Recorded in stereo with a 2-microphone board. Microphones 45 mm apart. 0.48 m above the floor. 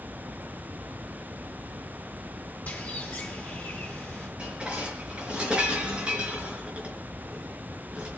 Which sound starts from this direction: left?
A bird, at 2.7 s.